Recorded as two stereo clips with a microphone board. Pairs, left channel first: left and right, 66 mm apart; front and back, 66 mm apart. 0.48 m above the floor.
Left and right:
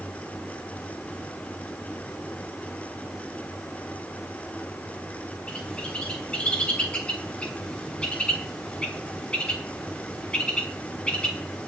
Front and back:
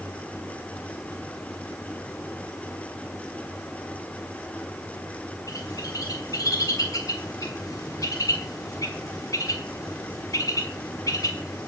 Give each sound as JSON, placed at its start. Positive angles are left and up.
{"t": 5.5, "sound": "a bird", "azimuth_deg": 15, "distance_m": 3.0}